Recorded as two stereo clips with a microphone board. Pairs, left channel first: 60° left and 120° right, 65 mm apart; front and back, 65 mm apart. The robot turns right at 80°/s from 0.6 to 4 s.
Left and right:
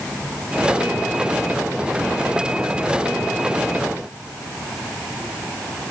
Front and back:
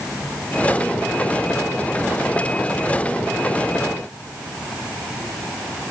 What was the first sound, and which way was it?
Only background noise.